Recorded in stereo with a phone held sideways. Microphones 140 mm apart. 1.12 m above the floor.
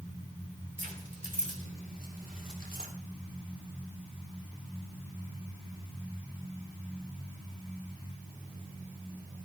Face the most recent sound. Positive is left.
turn(degrees=-85)